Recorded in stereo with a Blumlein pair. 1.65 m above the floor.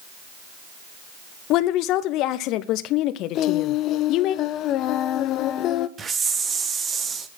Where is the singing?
35° left, 0.6 m.